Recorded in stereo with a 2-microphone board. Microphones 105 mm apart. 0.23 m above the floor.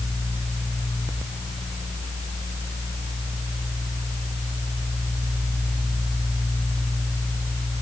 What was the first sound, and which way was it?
Only background noise.